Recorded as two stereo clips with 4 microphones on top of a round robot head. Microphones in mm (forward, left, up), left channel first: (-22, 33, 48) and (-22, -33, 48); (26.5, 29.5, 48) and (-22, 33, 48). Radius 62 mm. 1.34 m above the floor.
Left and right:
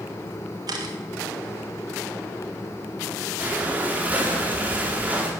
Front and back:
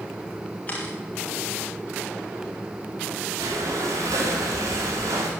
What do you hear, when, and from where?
0.7 s a camera shutter: 70° right, 1.9 m
3.4 s breathing: 155° right, 2.0 m